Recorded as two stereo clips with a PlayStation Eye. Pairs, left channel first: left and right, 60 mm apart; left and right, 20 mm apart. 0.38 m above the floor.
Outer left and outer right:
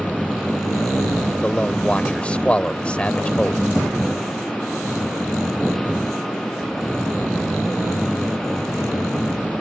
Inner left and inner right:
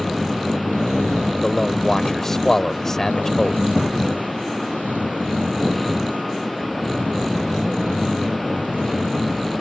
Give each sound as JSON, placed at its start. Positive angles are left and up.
{"t": 1.4, "sound": "a man speaking", "side_deg": 20}